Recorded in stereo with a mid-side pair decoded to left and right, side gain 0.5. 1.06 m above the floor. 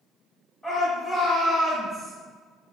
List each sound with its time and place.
0.6 s a shout: 5° right, 1.8 m; by 2.1 s 10° right, 2.5 m